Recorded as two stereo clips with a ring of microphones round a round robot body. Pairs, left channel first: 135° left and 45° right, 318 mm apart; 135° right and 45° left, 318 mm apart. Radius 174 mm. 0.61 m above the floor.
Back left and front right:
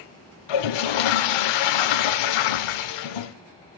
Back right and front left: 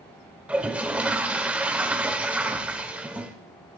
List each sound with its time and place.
0.5 s a toilet flushing: 130° left, 0.5 m